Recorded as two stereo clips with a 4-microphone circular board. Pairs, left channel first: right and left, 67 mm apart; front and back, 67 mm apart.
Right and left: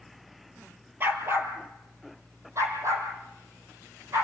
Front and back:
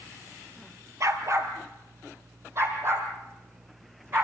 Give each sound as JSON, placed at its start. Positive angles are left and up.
{"t": 1.0, "sound": "a dog barking", "azimuth_deg": 145, "distance_m": 2.0}